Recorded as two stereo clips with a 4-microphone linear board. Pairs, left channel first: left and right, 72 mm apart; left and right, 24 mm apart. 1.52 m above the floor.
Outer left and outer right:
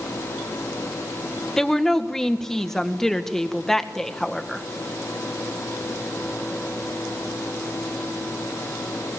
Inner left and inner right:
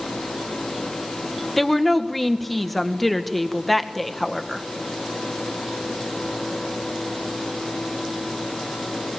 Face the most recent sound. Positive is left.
turn(degrees=5)  # may be behind; listen again after turning